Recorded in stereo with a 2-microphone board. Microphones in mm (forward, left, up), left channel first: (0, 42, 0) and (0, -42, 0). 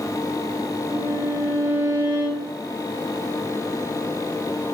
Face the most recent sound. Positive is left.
turn(degrees=-70)  # may be behind; listen again after turning